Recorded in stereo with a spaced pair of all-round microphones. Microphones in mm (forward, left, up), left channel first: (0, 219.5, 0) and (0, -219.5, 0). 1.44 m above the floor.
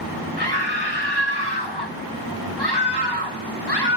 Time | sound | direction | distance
0.4 | a scream | 60° left (ahead or behind) | 1.9 m